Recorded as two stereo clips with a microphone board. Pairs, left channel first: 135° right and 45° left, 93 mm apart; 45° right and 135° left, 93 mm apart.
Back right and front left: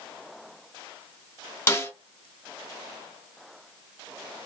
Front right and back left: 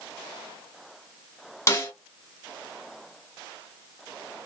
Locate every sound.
1.7 s a snare drum: 85° right, 1.3 m